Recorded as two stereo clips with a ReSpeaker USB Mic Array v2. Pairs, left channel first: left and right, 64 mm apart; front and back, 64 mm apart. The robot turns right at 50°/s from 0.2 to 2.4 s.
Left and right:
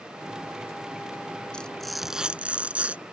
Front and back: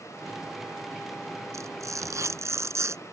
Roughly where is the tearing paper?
Behind.